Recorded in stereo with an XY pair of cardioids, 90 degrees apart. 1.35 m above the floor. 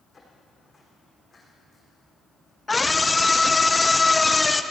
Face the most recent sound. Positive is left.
turn(degrees=20)